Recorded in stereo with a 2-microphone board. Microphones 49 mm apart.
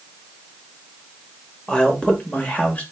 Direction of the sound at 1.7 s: 15° left (ahead or behind).